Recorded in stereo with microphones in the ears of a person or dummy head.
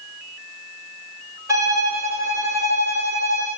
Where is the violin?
15° right (ahead or behind), 3 m.